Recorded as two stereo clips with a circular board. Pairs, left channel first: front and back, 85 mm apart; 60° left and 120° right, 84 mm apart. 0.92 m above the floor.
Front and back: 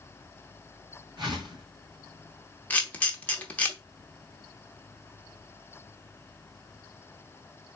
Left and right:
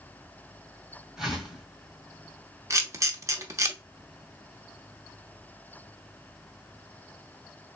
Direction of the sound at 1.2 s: 155° left.